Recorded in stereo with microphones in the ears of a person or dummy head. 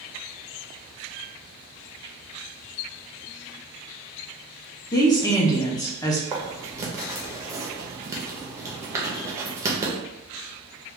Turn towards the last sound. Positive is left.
turn(degrees=-15)  # may be behind; listen again after turning